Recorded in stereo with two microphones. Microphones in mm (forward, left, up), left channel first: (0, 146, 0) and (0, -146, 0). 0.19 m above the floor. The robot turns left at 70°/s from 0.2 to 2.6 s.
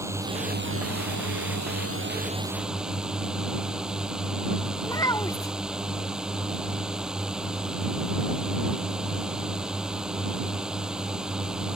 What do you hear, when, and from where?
0.0 s a drone: 10° right; by 11.8 s 175° right
4.8 s a child speaking: 10° left (ahead or behind)